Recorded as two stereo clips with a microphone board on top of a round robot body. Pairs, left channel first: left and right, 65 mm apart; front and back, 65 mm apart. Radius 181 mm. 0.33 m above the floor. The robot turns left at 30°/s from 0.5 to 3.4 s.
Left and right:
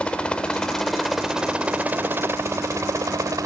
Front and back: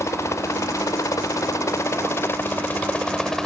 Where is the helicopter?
20° left; by 3.5 s 85° right.